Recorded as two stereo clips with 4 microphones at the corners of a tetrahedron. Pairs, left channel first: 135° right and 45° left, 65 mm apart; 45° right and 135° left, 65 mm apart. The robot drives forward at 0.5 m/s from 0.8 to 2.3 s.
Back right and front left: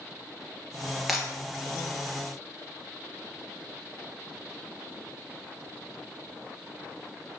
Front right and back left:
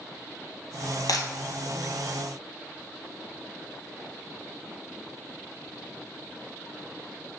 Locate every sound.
1.1 s breaking glass: 40° right, 1.5 m; by 1.3 s 45° right, 1.4 m